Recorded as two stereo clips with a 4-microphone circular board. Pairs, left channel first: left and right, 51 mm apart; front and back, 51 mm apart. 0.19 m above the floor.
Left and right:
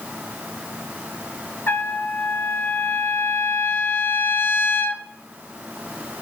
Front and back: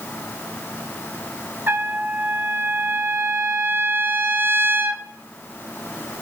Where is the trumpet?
135° left, 0.7 m.